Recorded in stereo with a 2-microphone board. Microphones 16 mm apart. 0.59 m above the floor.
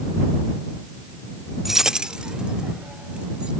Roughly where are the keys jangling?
Centre.